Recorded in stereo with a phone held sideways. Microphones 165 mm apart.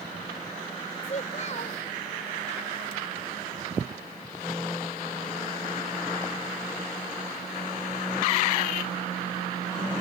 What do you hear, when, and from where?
1.0 s a child speaking: 50° left (ahead or behind)